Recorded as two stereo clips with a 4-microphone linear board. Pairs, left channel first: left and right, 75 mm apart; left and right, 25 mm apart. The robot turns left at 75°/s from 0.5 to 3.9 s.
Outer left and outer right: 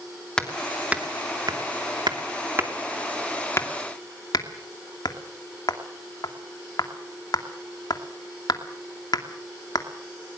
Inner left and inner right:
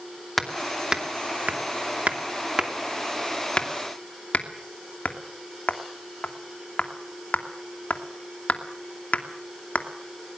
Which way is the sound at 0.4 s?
10° left (ahead or behind).